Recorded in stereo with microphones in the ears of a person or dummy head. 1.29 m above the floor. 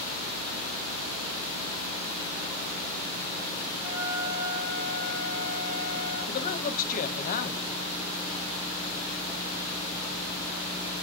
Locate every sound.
3.8 s a flute: 10° right (ahead or behind), 9 m
6.3 s a man speaking: 60° left (ahead or behind), 1.1 m